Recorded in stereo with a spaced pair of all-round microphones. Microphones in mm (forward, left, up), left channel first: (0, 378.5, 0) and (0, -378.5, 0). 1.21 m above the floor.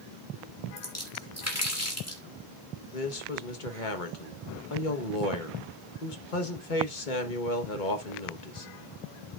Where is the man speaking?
85° left, 1.5 m.